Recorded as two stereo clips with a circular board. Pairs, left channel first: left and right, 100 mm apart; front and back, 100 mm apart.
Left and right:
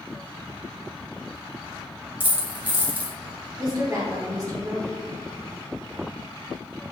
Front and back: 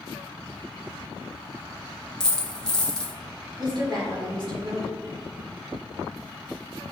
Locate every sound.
2.2 s a dropped coin: 65° right, 0.7 m
3.6 s a woman speaking: 145° right, 1.4 m